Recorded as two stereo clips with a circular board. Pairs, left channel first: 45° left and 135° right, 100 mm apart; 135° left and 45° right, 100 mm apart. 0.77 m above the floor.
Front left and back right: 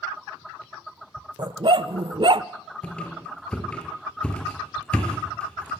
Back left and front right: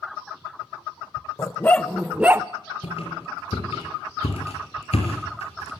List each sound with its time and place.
1.4 s a dog barking: 170° right, 0.7 m; by 2.5 s 105° right, 0.6 m
2.8 s a squeak: 125° left, 5 m